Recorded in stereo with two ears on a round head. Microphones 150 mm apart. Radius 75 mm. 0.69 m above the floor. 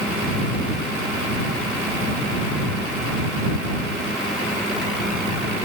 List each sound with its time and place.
Only background noise.